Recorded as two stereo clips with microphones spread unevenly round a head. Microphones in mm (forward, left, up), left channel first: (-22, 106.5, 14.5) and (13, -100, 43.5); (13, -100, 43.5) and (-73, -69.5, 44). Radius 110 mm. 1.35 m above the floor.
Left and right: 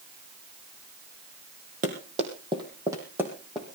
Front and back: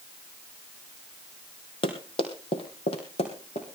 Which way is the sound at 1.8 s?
30° right.